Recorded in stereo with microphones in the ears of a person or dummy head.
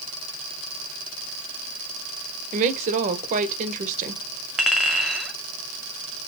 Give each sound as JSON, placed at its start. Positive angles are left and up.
{"t": 2.5, "sound": "a woman speaking", "side_deg": -45, "distance_m": 1.2}
{"t": 4.6, "sound": "a clink", "side_deg": -5, "distance_m": 2.0}